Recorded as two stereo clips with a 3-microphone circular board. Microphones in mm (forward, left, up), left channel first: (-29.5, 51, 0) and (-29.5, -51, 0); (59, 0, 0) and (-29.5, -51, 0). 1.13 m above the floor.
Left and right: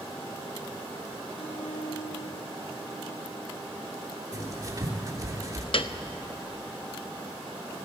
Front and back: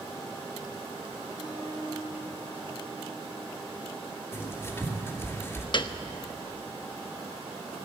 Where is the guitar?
75° left, 5 m.